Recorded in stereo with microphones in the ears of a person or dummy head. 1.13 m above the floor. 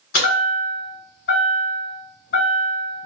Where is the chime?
40° left (ahead or behind), 1.4 m.